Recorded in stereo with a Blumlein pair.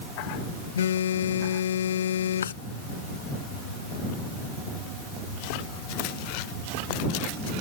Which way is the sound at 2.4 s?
65° left.